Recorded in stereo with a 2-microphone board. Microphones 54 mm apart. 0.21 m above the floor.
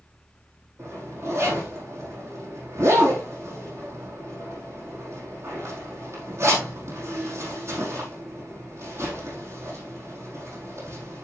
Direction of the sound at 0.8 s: 55° right (ahead or behind).